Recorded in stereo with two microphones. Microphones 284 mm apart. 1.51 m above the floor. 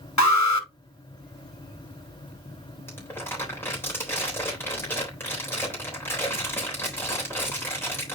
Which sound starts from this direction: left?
An alarm, at 0.2 s.